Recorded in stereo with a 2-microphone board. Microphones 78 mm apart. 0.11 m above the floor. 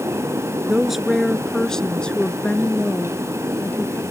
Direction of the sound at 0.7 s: 5° right (ahead or behind).